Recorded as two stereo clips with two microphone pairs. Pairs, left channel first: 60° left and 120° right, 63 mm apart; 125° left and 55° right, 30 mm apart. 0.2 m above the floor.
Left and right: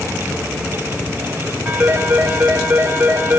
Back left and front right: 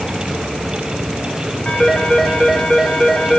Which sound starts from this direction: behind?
A phone ringing, at 1.6 s.